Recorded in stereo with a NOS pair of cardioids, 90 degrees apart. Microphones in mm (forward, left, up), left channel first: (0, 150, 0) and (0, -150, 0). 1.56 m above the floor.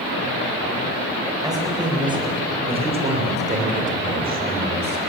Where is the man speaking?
10° right, 8.5 m; by 5.0 s 35° right, 6.5 m.